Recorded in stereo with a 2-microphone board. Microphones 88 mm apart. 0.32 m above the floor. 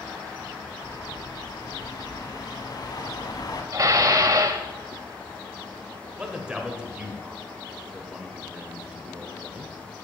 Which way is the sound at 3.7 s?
40° right (ahead or behind).